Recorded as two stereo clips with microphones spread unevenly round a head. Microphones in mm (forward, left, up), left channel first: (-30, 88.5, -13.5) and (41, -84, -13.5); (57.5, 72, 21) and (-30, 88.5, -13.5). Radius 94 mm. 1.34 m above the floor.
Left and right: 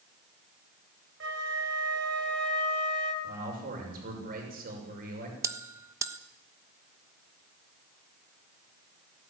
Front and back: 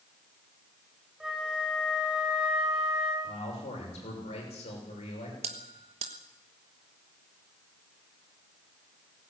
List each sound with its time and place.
1.2 s a flute: 100° right, 3 m
3.2 s a man speaking: 25° right, 6.5 m
5.4 s a bell: 145° right, 1.2 m